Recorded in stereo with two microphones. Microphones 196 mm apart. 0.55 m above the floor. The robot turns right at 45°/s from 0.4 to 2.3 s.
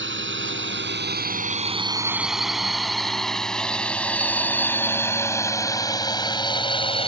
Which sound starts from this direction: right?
A drone, at 0.0 s.